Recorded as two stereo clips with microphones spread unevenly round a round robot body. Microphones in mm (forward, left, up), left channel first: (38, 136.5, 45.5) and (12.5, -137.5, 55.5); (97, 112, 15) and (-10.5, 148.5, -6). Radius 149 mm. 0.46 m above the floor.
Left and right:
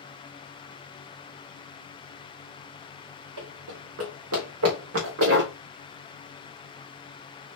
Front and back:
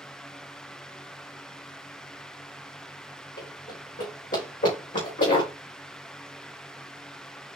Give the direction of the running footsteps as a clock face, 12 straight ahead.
2 o'clock.